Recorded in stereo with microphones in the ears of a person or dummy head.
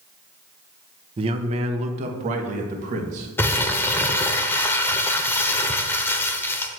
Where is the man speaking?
30° right (ahead or behind), 1.0 m; by 3.3 s 45° right (ahead or behind), 2 m.